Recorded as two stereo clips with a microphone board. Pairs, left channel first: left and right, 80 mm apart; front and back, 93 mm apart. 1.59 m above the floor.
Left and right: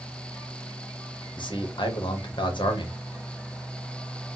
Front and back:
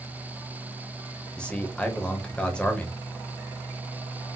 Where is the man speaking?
80° left, 0.8 m.